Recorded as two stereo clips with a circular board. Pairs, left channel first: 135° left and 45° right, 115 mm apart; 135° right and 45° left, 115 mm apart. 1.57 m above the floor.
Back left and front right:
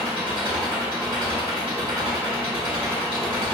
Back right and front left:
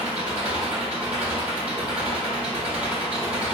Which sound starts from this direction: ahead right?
An engine running, at 0.0 s.